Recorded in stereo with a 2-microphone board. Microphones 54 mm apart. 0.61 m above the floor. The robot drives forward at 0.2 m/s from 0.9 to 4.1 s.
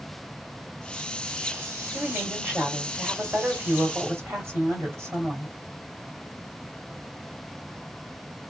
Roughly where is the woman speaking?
Right.